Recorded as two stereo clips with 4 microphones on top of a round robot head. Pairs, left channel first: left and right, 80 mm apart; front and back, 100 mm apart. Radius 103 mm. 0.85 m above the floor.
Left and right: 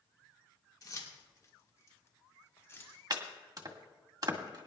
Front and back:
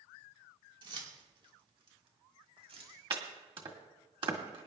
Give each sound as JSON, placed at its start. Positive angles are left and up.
{"t": 0.8, "sound": "keys jangling", "azimuth_deg": 135, "distance_m": 3.0}
{"t": 3.1, "sound": "chopping", "azimuth_deg": -135, "distance_m": 1.7}